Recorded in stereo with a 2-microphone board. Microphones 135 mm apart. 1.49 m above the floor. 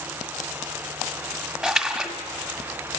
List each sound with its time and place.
1.6 s a splash: centre (ahead or behind), 1.6 m